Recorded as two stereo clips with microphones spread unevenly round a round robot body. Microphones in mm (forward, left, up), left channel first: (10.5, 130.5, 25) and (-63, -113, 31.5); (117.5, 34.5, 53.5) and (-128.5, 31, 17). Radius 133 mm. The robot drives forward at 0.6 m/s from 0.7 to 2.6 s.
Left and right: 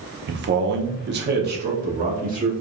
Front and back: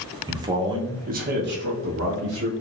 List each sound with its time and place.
0.3 s a man speaking: 125° right, 0.7 m; by 2.5 s 165° right, 1.5 m